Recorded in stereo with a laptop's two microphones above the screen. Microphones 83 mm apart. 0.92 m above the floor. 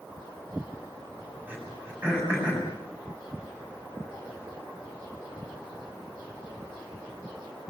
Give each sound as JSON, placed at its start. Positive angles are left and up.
{"t": 1.5, "sound": "throat clearing", "side_deg": -20, "distance_m": 7.5}